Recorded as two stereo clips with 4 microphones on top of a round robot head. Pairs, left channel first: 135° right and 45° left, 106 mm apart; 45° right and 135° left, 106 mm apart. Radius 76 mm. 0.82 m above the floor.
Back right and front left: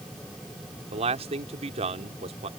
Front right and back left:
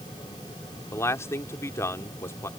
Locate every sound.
0.9 s a man speaking: 20° left